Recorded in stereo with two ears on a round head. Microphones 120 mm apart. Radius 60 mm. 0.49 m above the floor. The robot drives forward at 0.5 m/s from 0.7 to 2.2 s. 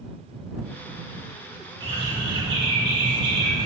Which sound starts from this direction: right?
A bird, at 1.8 s.